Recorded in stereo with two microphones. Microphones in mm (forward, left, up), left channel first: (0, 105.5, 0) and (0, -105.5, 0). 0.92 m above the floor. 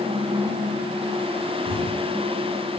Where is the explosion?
50° left (ahead or behind), 2.5 m.